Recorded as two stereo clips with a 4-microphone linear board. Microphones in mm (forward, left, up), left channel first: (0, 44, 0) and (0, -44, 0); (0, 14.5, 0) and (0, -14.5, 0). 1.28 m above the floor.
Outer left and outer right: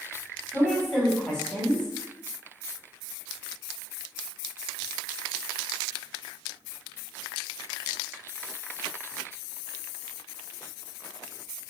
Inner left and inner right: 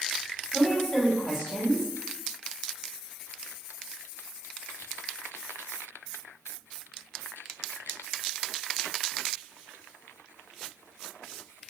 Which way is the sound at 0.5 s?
10° left (ahead or behind).